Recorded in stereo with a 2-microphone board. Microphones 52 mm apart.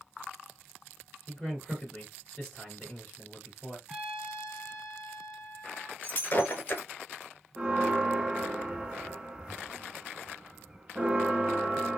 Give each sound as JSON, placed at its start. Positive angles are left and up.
{"t": 1.3, "sound": "a man speaking", "side_deg": 10, "distance_m": 2.5}
{"t": 3.9, "sound": "a trumpet", "side_deg": -5, "distance_m": 1.9}
{"t": 6.0, "sound": "breaking glass", "side_deg": 40, "distance_m": 1.2}
{"t": 7.6, "sound": "a bell", "side_deg": -20, "distance_m": 0.7}